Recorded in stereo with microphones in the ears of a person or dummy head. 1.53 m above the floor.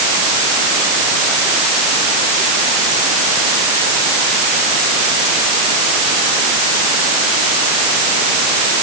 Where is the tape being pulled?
I don't hear tape being pulled.